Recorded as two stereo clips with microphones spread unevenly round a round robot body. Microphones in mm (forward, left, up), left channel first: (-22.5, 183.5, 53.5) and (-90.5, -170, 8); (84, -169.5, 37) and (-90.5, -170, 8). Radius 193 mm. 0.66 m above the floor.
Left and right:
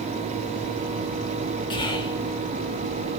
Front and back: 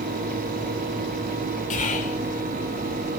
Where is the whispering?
Straight ahead, 0.7 m.